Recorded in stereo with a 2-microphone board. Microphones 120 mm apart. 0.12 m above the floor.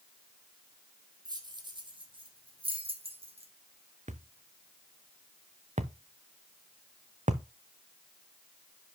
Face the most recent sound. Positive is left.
turn(degrees=-75)  # may be behind; listen again after turning